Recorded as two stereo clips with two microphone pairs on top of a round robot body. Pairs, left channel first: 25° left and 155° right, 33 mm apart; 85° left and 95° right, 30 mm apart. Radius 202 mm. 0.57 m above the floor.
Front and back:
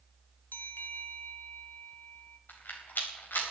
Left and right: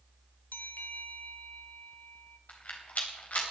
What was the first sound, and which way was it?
A bell, 45° left.